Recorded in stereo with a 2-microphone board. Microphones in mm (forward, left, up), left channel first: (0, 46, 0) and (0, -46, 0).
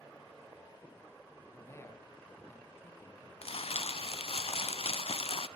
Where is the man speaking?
25° left (ahead or behind), 4 m.